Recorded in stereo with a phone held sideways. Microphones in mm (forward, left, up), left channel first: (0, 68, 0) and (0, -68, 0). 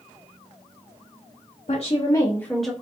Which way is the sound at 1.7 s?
55° left (ahead or behind).